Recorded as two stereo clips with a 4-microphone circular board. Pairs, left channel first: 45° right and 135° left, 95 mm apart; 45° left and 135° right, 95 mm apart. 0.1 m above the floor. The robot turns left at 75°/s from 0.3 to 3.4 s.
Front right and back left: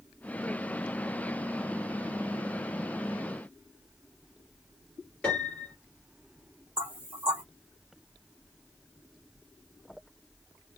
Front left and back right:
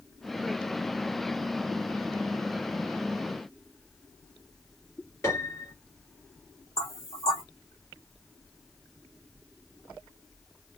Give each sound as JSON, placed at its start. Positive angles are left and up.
{"t": 5.2, "sound": "a piano", "azimuth_deg": 25, "distance_m": 2.0}
{"t": 6.8, "sound": "knocking", "azimuth_deg": 70, "distance_m": 1.6}